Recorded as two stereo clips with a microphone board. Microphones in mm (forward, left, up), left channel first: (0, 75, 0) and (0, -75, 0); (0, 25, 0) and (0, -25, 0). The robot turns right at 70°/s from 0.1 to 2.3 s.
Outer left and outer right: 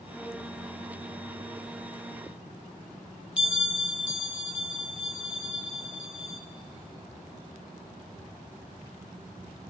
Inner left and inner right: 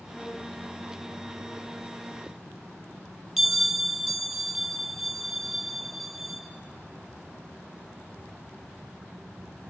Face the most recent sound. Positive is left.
turn(degrees=-5)  # may be behind; listen again after turning